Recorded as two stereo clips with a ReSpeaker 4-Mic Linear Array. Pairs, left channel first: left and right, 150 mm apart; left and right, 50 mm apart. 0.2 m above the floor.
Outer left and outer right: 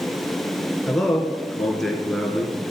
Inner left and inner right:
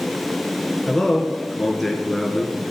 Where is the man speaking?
Centre (ahead or behind), 3 m.